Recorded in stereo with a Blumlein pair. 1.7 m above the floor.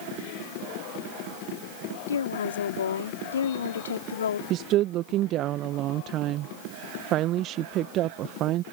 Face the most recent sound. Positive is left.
turn(degrees=-35)